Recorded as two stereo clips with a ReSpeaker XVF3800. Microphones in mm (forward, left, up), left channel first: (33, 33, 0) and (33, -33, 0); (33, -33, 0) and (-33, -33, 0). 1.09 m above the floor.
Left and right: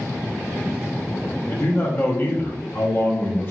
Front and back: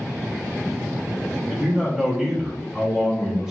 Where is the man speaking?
110° left, 0.9 m.